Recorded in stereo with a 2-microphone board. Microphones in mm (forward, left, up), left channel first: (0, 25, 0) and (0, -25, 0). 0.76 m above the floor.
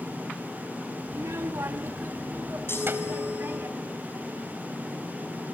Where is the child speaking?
65° right (ahead or behind), 1.0 m; by 3.7 s 45° right (ahead or behind), 3 m.